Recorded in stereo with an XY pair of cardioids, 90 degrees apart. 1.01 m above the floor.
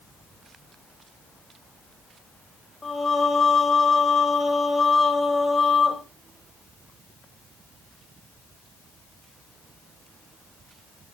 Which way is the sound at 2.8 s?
30° left.